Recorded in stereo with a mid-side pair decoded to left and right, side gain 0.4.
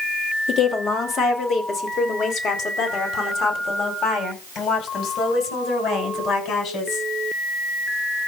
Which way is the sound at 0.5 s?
60° left.